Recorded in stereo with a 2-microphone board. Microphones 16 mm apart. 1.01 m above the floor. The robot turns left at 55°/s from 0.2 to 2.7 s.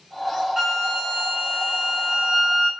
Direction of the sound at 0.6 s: 25° right.